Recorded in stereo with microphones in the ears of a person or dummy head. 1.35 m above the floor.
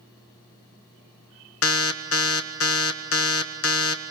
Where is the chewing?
No chewing in this recording.